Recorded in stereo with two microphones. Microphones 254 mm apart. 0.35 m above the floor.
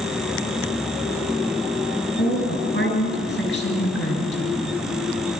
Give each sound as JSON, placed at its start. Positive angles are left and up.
{"t": 2.2, "sound": "a woman speaking", "side_deg": 45, "distance_m": 6.5}